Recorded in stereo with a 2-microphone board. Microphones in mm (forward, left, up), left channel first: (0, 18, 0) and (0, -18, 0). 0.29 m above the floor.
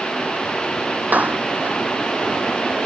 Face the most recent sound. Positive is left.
turn(degrees=-50)  # may be behind; listen again after turning